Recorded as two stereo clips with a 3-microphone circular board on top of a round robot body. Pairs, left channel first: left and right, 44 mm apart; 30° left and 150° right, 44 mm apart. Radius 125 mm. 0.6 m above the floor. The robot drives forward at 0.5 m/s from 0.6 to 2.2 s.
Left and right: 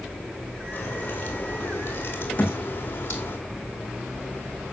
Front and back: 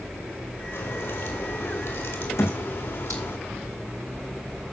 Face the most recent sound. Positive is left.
turn(degrees=30)